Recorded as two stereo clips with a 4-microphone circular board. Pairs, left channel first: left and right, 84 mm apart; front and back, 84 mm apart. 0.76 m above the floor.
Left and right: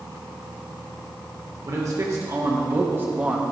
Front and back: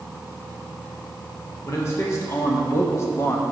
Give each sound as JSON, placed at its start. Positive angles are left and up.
{"t": 1.6, "sound": "a man speaking", "azimuth_deg": -50, "distance_m": 1.9}